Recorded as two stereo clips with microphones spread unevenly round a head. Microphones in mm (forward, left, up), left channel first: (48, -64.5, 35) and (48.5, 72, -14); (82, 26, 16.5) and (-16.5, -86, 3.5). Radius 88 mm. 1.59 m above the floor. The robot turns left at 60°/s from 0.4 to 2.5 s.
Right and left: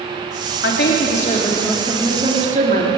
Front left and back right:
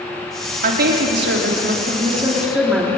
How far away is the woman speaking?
About 3.5 m.